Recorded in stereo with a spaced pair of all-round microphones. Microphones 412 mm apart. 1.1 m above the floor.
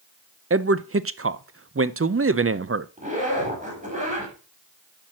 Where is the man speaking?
35° right (ahead or behind), 0.5 m.